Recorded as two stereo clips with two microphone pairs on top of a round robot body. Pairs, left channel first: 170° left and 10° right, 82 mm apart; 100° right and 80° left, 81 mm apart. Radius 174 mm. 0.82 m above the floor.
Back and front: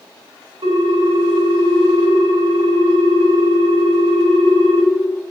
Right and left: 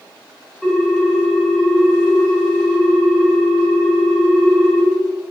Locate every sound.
0.6 s a ringtone: 5° right, 3 m